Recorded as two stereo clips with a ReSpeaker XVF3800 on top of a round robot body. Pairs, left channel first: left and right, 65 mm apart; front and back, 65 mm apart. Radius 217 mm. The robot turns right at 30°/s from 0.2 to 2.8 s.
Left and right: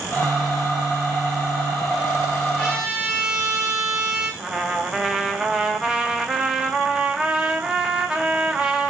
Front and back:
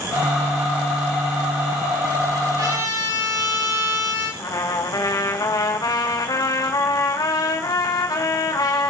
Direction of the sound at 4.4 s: 10° right.